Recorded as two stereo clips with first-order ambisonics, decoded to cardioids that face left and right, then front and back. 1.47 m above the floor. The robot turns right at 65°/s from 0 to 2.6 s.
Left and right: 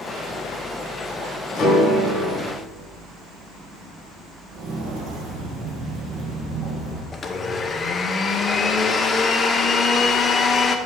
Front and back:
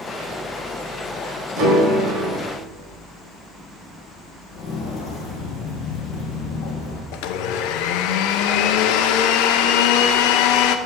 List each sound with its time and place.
1.6 s a piano: 145° left, 4 m; by 2.4 s 155° right, 4 m
4.5 s footsteps: 60° right, 3 m; by 7.0 s 20° right, 2.5 m
7.1 s a blender: 20° left, 0.6 m